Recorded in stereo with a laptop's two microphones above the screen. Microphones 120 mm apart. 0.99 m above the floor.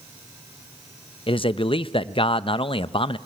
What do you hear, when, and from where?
1.3 s a man speaking: 45° left (ahead or behind), 0.6 m